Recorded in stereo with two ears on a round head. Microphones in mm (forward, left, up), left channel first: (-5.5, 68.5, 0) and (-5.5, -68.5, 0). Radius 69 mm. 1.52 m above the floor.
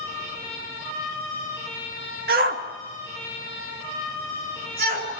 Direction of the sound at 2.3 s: 65° right (ahead or behind).